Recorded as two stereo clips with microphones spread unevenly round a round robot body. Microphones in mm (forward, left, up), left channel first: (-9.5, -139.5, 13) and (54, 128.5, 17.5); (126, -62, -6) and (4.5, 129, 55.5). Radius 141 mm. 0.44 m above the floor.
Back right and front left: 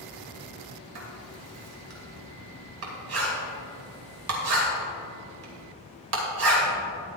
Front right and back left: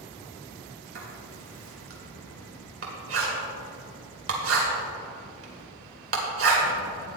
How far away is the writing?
About 2.5 m.